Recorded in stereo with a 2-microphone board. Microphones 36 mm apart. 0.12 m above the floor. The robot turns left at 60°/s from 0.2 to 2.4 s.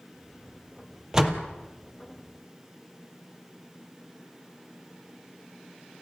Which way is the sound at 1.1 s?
15° right (ahead or behind).